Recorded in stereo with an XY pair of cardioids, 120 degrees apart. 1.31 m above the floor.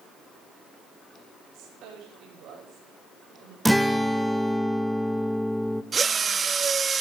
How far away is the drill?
About 1.4 m.